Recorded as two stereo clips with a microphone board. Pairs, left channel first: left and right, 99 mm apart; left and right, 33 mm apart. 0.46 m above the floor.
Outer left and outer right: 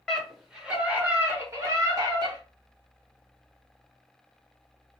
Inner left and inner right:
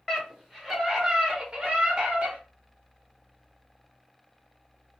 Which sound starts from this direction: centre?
A scream, at 0.1 s.